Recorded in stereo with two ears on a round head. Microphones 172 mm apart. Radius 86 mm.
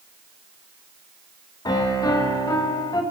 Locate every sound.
1.6 s a piano: 20° left (ahead or behind), 0.6 m